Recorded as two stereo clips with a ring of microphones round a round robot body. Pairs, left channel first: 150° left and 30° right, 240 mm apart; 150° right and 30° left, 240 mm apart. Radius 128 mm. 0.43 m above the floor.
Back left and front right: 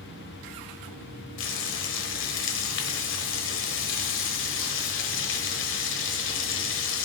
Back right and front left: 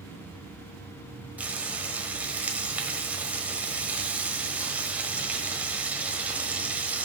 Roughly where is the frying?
Behind left.